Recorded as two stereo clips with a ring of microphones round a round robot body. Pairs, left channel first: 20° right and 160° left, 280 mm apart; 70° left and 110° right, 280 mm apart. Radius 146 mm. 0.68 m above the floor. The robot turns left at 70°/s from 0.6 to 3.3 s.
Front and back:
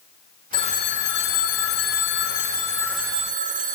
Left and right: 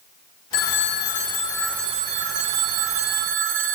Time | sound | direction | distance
0.5 | a phone ringing | 55° left | 1.6 m